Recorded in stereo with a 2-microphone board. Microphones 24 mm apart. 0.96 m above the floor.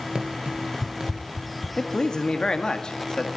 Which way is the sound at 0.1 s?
40° right (ahead or behind).